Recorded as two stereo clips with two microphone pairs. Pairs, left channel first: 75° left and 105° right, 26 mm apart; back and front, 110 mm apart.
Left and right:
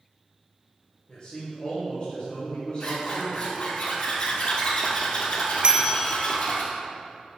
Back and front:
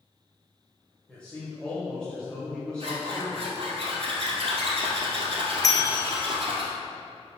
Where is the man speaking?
105° left, 1.8 m.